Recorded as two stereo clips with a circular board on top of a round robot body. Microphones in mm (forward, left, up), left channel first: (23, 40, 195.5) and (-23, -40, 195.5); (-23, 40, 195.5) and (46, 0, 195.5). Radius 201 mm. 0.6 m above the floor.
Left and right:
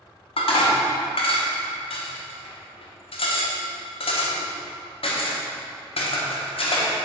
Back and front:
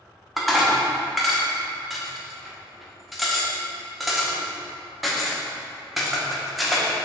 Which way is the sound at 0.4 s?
60° left.